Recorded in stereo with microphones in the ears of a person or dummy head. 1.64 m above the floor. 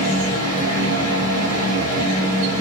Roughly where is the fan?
Right.